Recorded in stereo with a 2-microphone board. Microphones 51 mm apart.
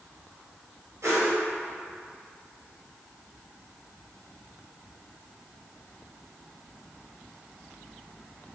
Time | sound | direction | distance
1.0 | a whoosh | 85° right | 0.9 m